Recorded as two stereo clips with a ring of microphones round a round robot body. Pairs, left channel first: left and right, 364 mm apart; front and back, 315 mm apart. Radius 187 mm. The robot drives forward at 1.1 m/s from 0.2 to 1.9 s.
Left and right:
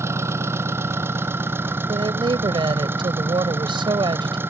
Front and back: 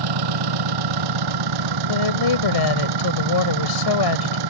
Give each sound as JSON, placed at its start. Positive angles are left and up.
{"t": 0.0, "sound": "an engine running", "azimuth_deg": -175}
{"t": 1.9, "sound": "a woman speaking", "azimuth_deg": -10}